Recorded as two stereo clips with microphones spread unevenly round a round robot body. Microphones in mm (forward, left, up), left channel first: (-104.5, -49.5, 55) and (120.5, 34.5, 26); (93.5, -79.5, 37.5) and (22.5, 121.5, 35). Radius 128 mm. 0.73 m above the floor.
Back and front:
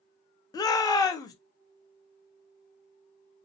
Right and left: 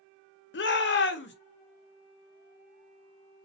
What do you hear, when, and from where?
0.5 s a shout: 80° right, 0.6 m